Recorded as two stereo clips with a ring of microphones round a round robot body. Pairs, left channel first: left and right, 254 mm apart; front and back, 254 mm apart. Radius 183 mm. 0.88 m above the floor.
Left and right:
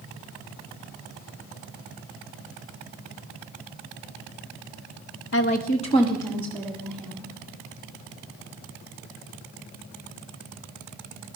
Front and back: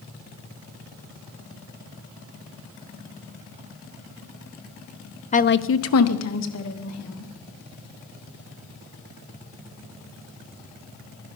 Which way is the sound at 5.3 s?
60° left.